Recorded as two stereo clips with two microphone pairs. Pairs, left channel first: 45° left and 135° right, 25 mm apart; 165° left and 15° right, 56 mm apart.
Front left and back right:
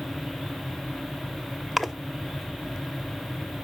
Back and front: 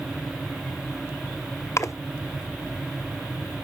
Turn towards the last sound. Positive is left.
turn(degrees=130)